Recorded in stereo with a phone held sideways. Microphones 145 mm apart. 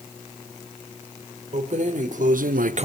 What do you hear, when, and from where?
1.5 s keys jangling: 55° right (ahead or behind), 1.7 m; by 2.9 s 45° right (ahead or behind), 0.5 m